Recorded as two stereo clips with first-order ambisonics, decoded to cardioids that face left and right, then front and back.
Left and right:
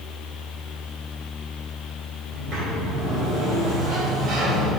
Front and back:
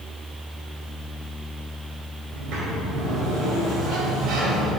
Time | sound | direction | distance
2.3 | a sliding door | 140° right | 2.5 m